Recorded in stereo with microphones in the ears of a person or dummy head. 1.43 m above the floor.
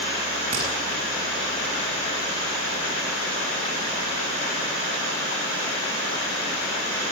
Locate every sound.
0.5 s hammering: 30° right (ahead or behind), 8 m